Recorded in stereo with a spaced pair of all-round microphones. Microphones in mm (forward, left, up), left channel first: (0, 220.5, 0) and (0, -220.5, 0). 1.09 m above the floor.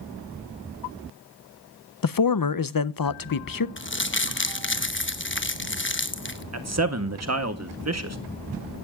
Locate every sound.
2.0 s a man speaking: 50° left (ahead or behind), 0.5 m
3.8 s crumpling: 25° left (ahead or behind), 1.0 m
6.5 s a man speaking: 35° right (ahead or behind), 0.9 m